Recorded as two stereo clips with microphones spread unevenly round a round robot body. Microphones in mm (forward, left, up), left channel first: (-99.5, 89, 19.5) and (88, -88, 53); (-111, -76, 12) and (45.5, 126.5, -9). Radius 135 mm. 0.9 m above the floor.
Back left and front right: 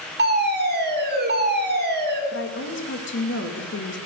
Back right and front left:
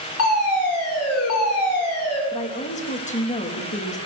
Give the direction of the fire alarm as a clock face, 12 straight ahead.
3 o'clock.